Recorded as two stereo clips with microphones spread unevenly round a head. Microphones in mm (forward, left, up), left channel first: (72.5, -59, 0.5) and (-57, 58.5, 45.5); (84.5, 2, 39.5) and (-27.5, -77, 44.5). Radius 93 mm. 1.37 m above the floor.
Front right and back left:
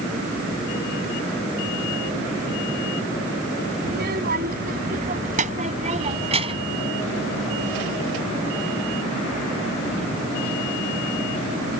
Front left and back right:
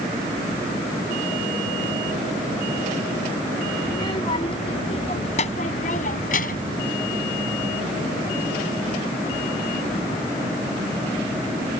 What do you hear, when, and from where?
3.9 s a child speaking: 105° left; by 6.8 s 80° left